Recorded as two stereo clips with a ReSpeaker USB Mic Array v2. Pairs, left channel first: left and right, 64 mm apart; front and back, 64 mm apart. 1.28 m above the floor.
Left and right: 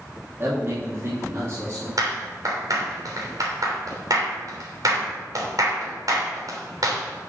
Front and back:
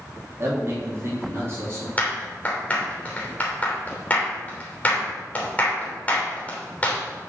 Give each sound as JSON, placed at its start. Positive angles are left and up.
{"t": 0.4, "sound": "a man speaking", "azimuth_deg": -140, "distance_m": 3.0}
{"t": 2.0, "sound": "a clap", "azimuth_deg": -70, "distance_m": 3.0}